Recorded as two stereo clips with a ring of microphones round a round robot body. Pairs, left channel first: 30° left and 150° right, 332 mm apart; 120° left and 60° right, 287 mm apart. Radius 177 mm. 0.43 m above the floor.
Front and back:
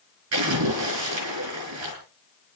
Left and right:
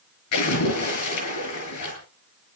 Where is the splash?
165° left, 7 m.